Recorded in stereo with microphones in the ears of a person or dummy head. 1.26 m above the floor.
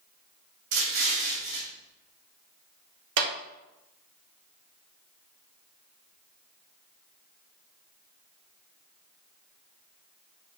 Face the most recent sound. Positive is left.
turn(degrees=-60)  # may be behind; listen again after turning